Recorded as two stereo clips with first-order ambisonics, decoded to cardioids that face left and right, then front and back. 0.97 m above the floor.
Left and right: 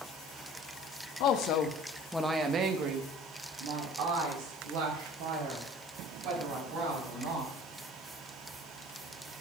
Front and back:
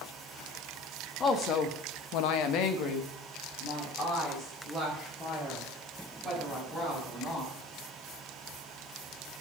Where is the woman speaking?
60° left, 1.5 m; by 7.5 s 75° right, 7 m.